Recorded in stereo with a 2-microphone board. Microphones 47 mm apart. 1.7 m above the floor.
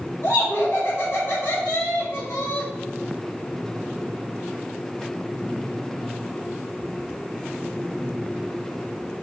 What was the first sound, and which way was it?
Laughter, 70° left (ahead or behind).